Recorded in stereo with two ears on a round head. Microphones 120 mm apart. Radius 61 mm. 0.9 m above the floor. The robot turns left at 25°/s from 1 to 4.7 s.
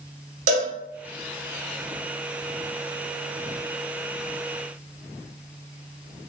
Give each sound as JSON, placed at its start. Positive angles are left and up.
{"t": 0.5, "sound": "a cowbell", "side_deg": -60, "distance_m": 0.8}